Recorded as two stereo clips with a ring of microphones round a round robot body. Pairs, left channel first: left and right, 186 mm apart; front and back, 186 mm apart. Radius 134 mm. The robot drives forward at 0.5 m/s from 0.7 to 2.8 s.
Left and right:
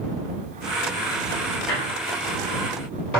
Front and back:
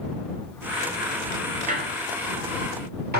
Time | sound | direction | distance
1.7 | a squeak | 130° left | 1.0 m